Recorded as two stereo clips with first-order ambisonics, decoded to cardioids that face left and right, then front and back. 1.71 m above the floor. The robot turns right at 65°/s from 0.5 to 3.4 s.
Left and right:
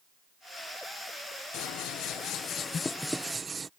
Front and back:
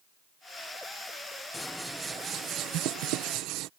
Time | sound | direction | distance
1.5 | scissors | 75° left | ?